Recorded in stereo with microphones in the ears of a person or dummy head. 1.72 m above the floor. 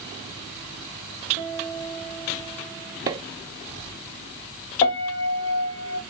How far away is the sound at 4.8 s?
About 1.3 m.